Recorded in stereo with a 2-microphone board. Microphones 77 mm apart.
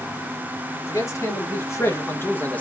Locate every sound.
0.9 s a man speaking: 45° left (ahead or behind), 2 m; by 2.6 s 20° left (ahead or behind), 0.9 m